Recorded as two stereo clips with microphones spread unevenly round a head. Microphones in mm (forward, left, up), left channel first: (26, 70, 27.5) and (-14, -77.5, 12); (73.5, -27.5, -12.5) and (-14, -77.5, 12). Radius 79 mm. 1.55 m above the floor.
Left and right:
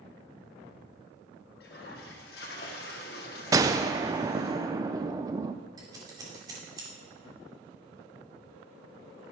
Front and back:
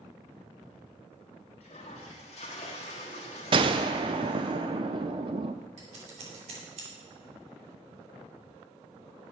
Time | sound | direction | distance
1.6 | a toilet flushing | 75° left | 1.6 m
3.5 | a gunshot | 175° right | 0.6 m
5.8 | scissors | 175° right | 2.5 m